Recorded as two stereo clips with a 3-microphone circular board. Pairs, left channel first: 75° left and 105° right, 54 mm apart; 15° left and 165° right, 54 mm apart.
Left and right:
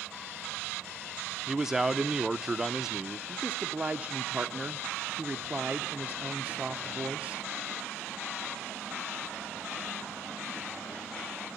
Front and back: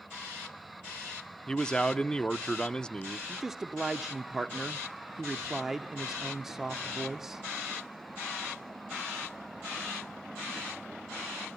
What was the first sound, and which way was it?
A man speaking, 35° right.